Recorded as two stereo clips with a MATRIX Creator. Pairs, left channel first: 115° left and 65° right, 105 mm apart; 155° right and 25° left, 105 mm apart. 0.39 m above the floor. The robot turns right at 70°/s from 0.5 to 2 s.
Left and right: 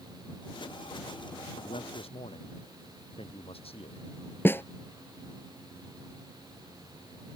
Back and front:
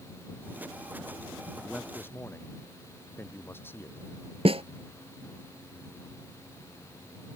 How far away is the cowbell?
I don't hear a cowbell.